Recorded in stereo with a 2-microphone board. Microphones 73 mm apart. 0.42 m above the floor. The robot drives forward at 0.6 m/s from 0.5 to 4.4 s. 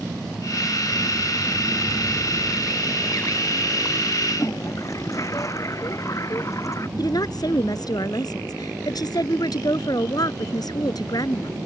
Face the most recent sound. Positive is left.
turn(degrees=60)  # may be behind; listen again after turning